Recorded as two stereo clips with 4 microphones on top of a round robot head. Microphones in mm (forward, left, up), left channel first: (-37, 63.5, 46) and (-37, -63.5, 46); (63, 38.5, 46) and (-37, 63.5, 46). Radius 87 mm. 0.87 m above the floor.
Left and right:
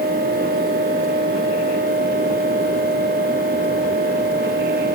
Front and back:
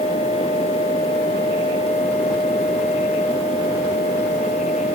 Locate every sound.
Only background noise.